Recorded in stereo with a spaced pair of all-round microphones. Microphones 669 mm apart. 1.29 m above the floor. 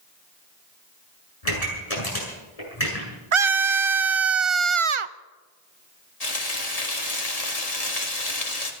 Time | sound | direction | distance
1.4 | a pop | 60° left (ahead or behind) | 7.5 m
3.3 | a scream | 50° right (ahead or behind) | 0.7 m
6.2 | frying | 65° left (ahead or behind) | 2.5 m